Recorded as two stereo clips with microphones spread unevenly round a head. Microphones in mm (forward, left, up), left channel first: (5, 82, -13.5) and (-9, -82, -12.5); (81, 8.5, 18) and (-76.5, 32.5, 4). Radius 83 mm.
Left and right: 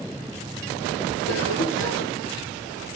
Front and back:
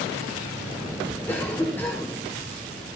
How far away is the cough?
About 4.5 m.